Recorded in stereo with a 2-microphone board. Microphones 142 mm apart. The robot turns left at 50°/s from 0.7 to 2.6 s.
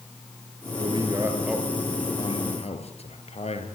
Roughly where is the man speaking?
Right.